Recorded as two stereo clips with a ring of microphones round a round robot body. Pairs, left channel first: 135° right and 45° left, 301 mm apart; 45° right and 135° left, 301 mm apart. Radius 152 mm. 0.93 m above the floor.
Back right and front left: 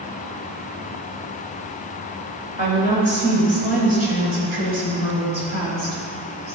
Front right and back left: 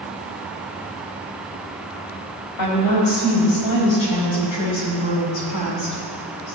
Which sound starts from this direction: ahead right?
A woman speaking, at 2.6 s.